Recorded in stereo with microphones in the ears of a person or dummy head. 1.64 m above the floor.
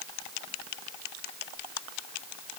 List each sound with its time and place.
Only background noise.